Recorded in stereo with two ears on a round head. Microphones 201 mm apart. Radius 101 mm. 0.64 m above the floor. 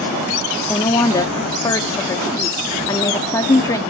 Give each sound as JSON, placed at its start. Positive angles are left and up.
{"t": 0.7, "sound": "a woman speaking", "side_deg": 15, "distance_m": 0.8}